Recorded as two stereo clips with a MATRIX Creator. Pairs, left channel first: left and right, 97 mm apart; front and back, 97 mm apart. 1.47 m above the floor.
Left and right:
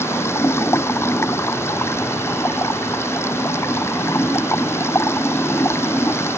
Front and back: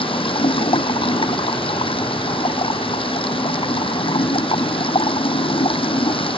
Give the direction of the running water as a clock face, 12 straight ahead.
11 o'clock.